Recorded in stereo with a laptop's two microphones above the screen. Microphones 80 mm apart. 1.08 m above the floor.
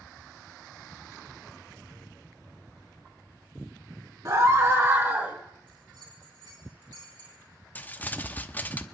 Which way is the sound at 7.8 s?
20° left (ahead or behind).